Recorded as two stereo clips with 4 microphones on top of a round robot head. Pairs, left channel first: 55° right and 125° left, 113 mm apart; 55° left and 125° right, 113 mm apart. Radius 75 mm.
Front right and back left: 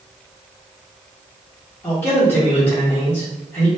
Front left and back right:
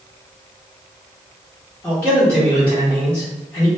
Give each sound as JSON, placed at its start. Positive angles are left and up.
{"t": 1.8, "sound": "a man speaking", "azimuth_deg": 0, "distance_m": 1.2}